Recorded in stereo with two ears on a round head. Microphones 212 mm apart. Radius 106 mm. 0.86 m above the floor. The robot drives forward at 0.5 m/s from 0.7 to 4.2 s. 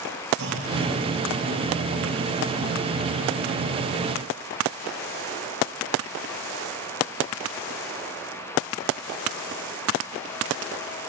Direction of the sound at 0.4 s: 50° right (ahead or behind).